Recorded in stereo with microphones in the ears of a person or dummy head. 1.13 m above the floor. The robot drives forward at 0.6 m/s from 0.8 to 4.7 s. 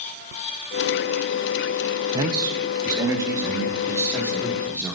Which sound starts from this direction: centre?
A man speaking, at 2.1 s.